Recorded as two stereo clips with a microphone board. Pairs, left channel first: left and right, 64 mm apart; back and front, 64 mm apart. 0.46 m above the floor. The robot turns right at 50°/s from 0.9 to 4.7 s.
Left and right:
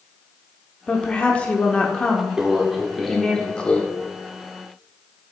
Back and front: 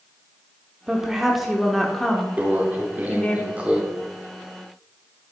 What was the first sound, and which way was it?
A woman speaking, 55° left.